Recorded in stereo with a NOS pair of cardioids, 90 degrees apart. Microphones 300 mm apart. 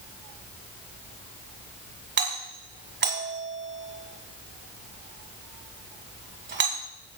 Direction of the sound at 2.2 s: 35° right.